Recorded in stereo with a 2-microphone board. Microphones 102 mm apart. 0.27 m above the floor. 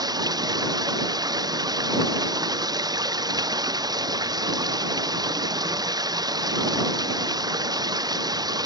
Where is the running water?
40° right (ahead or behind).